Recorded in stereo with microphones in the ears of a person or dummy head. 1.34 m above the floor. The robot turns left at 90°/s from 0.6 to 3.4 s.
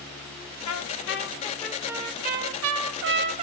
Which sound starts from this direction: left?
A trumpet, at 0.7 s.